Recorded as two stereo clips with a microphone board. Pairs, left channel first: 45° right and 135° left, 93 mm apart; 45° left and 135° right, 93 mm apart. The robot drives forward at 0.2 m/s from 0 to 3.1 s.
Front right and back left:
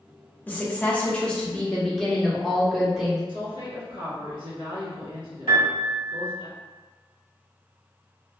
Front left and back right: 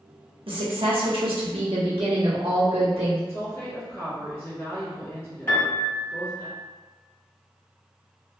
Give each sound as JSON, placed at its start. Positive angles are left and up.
{"t": 0.5, "sound": "a woman speaking", "azimuth_deg": -115, "distance_m": 1.0}
{"t": 3.3, "sound": "a woman speaking", "azimuth_deg": 110, "distance_m": 1.7}
{"t": 5.5, "sound": "a piano", "azimuth_deg": 110, "distance_m": 1.2}